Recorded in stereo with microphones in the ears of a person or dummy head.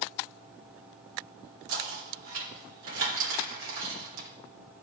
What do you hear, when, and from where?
1.7 s knocking: 75° right (ahead or behind), 3.5 m